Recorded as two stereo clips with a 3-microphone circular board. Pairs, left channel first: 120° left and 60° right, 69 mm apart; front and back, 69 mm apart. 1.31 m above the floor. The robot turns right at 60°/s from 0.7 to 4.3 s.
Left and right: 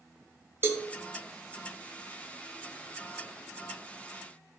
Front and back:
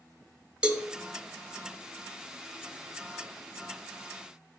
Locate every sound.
0.6 s a cowbell: 105° right, 0.7 m; by 0.9 s 95° right, 0.7 m